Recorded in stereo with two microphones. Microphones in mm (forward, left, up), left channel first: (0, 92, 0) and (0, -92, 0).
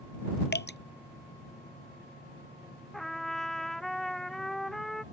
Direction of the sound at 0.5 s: 60° left (ahead or behind).